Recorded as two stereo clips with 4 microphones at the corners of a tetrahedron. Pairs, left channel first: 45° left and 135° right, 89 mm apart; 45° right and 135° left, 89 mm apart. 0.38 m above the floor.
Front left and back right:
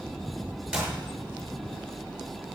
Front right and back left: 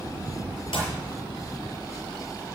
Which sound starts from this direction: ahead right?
A clap, at 0.7 s.